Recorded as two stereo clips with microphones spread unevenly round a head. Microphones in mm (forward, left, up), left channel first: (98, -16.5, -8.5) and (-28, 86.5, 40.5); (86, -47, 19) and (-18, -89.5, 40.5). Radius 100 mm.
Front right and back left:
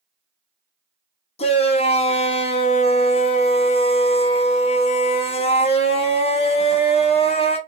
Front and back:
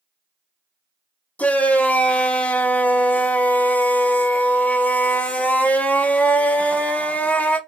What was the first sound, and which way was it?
A shout, 45° right.